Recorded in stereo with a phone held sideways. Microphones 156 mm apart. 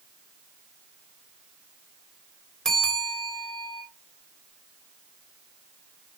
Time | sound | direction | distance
2.6 | a bell | 5° left (ahead or behind) | 3 m